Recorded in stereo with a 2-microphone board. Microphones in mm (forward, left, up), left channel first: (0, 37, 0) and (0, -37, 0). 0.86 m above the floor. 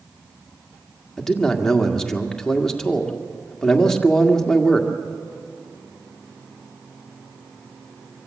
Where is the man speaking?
5° left (ahead or behind), 1.7 m.